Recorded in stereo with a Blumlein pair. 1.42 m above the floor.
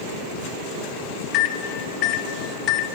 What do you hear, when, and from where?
1.3 s a microwave: 35° left, 0.7 m